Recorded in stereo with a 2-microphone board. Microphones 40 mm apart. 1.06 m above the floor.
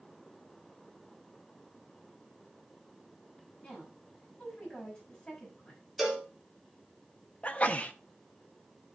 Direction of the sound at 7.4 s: 30° left (ahead or behind).